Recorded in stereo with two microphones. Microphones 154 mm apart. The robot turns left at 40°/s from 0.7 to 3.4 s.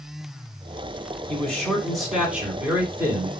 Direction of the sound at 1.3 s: 10° left (ahead or behind).